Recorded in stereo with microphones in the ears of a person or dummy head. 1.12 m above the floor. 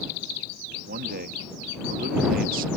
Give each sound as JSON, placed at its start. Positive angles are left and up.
{"t": 0.9, "sound": "a man speaking", "side_deg": -50}